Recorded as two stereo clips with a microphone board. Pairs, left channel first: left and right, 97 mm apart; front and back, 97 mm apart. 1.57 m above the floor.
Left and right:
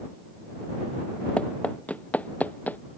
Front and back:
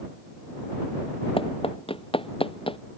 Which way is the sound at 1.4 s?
15° left.